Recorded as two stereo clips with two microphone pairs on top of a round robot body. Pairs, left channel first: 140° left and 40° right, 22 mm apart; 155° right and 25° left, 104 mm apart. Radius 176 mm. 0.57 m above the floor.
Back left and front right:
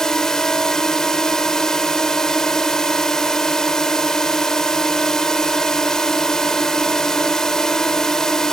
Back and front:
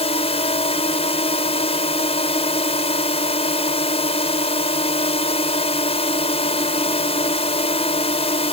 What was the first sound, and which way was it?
A drone, 160° right.